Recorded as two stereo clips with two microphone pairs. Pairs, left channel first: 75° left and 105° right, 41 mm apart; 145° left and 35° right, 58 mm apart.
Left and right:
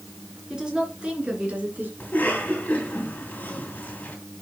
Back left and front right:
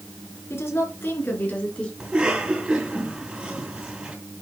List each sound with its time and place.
0.5 s a woman speaking: 175° right, 3.5 m; by 1.9 s 145° right, 3 m
2.0 s a cough: 35° left, 3.5 m